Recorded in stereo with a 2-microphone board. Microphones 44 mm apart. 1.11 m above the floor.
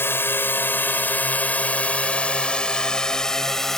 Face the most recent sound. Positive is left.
turn(degrees=10)  # may be behind; listen again after turning